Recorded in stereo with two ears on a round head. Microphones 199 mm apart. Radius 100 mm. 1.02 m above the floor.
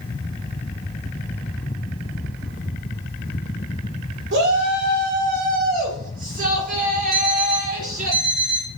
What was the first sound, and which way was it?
A shout, 50° right (ahead or behind).